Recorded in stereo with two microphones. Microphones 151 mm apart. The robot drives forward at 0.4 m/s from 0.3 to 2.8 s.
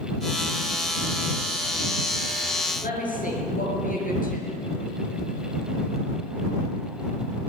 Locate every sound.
2.8 s a woman speaking: 65° left (ahead or behind), 6.5 m